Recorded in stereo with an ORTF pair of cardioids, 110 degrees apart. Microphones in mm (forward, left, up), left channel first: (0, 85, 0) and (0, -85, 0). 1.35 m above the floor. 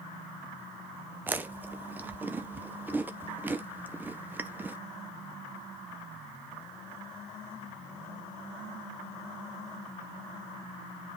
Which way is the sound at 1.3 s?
10° right.